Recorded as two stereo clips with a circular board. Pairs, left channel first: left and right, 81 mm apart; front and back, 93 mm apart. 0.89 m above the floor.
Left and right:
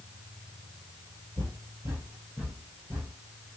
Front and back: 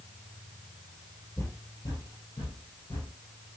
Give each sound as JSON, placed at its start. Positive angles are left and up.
{"t": 1.4, "sound": "footsteps", "azimuth_deg": -65, "distance_m": 1.5}